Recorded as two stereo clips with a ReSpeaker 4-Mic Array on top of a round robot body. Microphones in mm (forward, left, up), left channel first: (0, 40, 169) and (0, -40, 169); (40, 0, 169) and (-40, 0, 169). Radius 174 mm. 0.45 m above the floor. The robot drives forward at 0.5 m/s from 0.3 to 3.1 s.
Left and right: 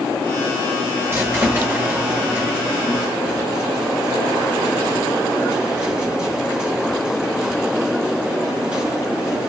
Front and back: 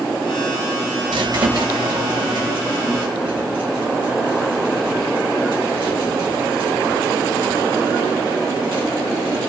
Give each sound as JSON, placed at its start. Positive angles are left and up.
{"t": 1.1, "sound": "a squeak", "azimuth_deg": -150, "distance_m": 0.7}